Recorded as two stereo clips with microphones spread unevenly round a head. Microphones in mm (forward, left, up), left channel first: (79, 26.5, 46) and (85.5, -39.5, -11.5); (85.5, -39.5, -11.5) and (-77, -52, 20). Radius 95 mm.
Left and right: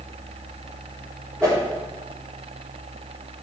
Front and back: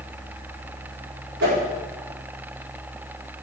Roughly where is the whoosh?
Behind.